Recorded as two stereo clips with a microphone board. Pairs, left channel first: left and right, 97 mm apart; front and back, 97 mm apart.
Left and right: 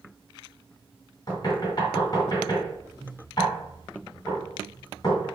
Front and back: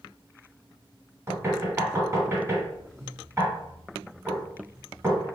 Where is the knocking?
125° left, 2 m.